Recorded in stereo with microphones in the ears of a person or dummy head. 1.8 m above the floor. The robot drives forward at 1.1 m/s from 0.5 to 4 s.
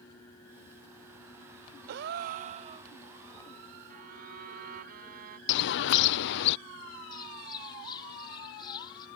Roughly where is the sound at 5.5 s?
Left.